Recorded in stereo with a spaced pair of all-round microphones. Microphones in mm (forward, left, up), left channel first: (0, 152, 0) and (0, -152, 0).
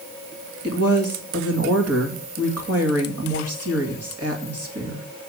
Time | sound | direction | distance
0.6 | a woman speaking | 50° right (ahead or behind) | 2 m